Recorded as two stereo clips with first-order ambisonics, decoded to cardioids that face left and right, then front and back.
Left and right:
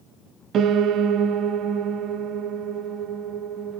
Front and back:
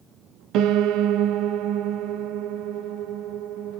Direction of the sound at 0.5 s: 145° right.